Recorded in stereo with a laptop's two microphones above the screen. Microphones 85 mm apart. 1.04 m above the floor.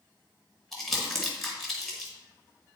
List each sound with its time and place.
0.7 s crumpling: 5° left (ahead or behind), 1.5 m